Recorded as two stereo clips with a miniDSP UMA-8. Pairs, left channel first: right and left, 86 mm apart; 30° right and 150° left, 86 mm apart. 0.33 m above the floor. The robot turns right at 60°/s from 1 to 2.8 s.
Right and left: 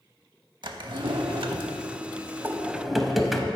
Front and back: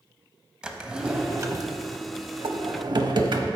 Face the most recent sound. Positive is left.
turn(degrees=180)